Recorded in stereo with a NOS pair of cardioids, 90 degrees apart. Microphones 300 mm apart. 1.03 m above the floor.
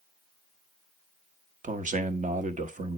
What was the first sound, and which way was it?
A man speaking, 25° right.